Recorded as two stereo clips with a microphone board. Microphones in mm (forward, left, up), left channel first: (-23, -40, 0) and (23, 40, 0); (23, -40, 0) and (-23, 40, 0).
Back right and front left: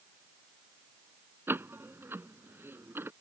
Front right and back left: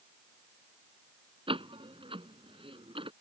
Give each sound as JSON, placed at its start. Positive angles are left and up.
{"t": 1.5, "sound": "a door slam", "azimuth_deg": 125}